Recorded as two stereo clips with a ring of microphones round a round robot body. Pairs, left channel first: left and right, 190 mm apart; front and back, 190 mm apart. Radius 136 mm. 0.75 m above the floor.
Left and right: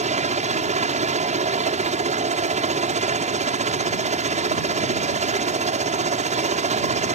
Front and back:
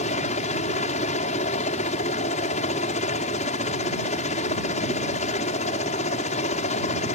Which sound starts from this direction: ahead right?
A helicopter, at 0.0 s.